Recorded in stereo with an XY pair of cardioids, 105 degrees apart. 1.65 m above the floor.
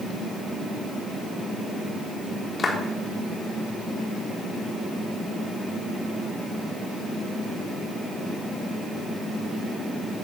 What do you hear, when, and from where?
2.6 s a clap: 35° left, 3.5 m